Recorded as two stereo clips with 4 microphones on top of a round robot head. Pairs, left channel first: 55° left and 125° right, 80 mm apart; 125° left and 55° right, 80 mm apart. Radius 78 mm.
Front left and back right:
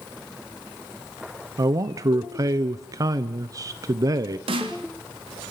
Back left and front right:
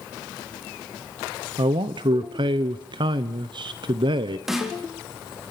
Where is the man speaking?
80° right, 1.2 m.